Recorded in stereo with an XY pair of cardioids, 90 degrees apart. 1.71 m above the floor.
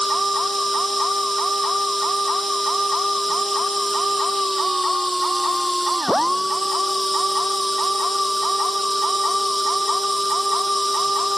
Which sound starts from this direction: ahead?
A machine running, at 0.0 s.